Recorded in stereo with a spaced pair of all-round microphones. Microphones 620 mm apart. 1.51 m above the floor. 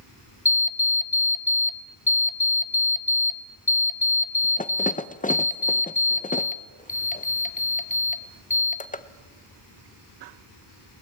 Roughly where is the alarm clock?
Centre.